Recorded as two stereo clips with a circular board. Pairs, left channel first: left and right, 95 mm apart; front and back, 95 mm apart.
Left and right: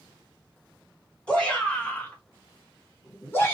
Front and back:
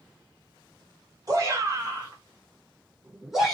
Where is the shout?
160° left, 1.6 m; by 3.6 s 80° left, 1.2 m.